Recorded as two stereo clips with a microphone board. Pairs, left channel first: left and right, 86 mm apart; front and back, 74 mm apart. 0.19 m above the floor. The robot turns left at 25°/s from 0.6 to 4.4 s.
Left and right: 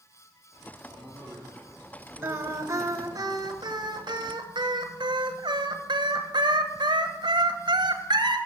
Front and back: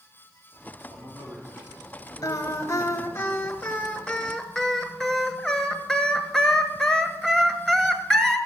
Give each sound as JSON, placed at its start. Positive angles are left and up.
{"t": 0.9, "sound": "a man speaking", "azimuth_deg": -175, "distance_m": 7.0}
{"t": 2.2, "sound": "singing", "azimuth_deg": -30, "distance_m": 1.2}